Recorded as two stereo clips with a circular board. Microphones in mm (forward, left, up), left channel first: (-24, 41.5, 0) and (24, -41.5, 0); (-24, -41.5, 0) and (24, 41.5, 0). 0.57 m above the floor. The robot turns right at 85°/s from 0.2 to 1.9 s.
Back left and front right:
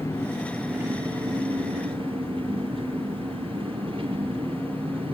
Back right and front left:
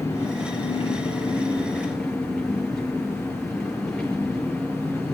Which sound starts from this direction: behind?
An engine running, at 0.0 s.